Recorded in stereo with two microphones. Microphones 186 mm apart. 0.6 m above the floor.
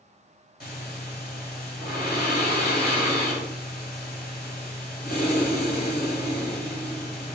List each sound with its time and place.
0.6 s breathing: 55° left (ahead or behind), 2.5 m